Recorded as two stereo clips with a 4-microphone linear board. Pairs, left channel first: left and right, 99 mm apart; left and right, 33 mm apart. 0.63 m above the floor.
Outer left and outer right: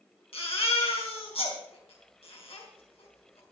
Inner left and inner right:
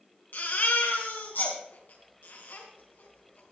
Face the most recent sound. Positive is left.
turn(degrees=80)